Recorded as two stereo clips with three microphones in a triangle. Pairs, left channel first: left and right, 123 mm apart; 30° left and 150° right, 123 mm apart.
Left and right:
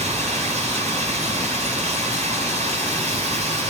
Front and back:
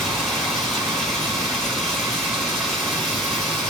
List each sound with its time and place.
0.0 s running water: 60° right, 7.5 m